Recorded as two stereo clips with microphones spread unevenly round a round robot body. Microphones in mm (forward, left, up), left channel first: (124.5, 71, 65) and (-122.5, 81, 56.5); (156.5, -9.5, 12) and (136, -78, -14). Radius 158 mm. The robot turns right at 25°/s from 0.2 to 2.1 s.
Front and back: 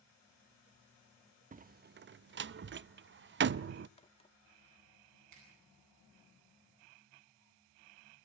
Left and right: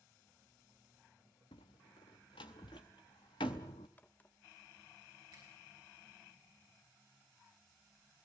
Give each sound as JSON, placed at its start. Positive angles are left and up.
{"t": 1.5, "sound": "a door slam", "azimuth_deg": 115, "distance_m": 0.5}
{"t": 4.0, "sound": "a crack", "azimuth_deg": -10, "distance_m": 0.8}
{"t": 5.3, "sound": "a finger snap", "azimuth_deg": -160, "distance_m": 9.5}